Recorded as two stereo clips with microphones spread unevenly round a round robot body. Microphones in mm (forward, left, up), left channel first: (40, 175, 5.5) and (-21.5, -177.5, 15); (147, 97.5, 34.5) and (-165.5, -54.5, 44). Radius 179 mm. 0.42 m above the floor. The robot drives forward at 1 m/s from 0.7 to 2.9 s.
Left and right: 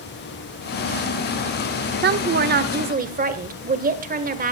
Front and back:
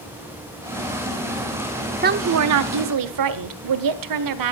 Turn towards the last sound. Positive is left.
turn(degrees=-165)